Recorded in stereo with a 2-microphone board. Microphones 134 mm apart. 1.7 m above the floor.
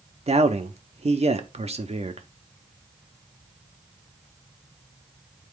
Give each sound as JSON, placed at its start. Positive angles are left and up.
{"t": 0.3, "sound": "a man speaking", "side_deg": -50, "distance_m": 0.7}